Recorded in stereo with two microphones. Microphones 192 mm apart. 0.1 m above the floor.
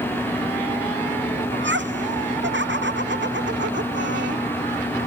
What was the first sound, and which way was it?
Laughter, 75° right (ahead or behind).